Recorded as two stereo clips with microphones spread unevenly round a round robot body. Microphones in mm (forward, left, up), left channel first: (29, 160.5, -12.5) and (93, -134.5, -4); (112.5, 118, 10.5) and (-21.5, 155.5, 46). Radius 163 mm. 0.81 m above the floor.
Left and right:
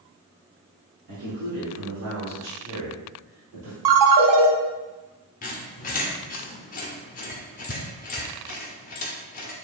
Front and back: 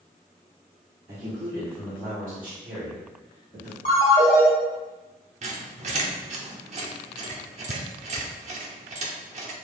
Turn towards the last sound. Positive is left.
turn(degrees=165)